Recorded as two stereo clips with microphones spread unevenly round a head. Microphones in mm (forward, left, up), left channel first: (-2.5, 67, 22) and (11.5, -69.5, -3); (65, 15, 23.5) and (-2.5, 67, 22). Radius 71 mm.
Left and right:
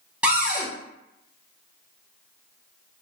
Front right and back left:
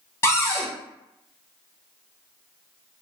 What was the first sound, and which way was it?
A cupboard door, 35° right.